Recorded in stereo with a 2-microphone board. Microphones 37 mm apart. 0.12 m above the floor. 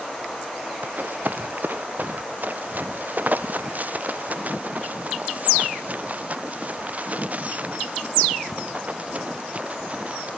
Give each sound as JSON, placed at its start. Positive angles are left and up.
{"t": 0.8, "sound": "running footsteps", "side_deg": -55}